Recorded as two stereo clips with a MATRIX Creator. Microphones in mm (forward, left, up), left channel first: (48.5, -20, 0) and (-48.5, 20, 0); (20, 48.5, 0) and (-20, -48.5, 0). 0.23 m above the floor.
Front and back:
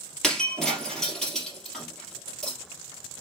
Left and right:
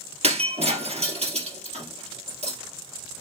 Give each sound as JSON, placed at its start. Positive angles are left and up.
{"t": 0.2, "sound": "breaking glass", "azimuth_deg": -110, "distance_m": 2.5}